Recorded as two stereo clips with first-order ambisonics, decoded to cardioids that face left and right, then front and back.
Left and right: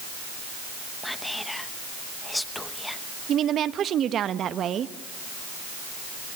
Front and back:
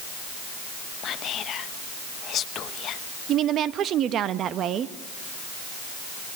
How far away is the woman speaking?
About 0.9 m.